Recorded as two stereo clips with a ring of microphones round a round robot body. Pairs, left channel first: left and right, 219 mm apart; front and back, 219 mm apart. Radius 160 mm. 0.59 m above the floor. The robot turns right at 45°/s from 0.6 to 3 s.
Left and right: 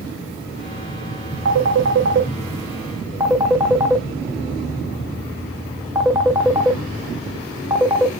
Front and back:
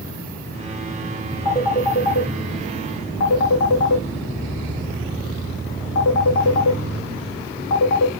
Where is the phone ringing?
80° right, 0.6 m; by 8.1 s 10° right, 0.6 m.